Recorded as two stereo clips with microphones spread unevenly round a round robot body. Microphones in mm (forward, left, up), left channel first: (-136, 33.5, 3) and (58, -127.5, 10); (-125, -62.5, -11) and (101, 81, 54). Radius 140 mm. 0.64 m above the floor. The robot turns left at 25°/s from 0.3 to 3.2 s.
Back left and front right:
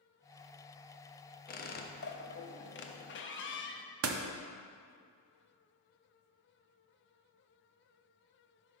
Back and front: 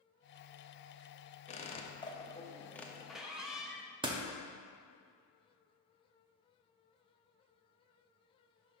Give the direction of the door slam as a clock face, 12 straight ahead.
2 o'clock.